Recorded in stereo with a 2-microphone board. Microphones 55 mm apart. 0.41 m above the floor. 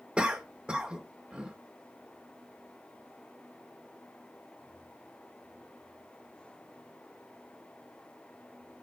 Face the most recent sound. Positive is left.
turn(degrees=-20)  # may be behind; listen again after turning